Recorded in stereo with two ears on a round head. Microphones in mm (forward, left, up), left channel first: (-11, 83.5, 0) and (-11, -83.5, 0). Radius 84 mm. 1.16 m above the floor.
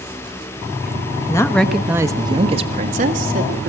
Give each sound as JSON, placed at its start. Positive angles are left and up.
{"t": 1.3, "sound": "a woman speaking", "side_deg": 20, "distance_m": 0.9}